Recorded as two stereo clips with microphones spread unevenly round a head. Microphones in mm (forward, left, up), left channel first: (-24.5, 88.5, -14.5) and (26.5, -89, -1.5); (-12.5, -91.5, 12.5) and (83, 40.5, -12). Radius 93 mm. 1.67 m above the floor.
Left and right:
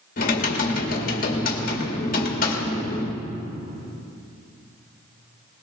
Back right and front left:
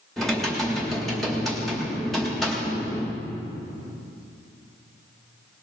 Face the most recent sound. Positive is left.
turn(degrees=150)